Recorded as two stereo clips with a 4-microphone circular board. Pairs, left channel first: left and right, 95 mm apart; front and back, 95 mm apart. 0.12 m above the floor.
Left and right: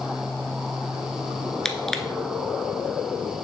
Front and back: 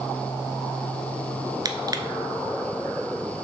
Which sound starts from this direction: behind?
Crushing, at 1.6 s.